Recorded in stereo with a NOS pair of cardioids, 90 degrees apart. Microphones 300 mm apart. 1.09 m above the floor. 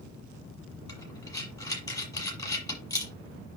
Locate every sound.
0.9 s breathing: 10° left, 7 m